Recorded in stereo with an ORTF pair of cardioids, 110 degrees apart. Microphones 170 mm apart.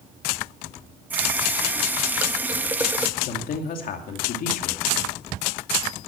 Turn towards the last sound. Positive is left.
turn(degrees=60)